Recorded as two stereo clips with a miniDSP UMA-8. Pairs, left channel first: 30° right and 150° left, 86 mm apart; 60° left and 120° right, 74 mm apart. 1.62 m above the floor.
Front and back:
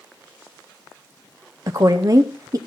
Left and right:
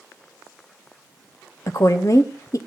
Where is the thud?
I don't hear a thud.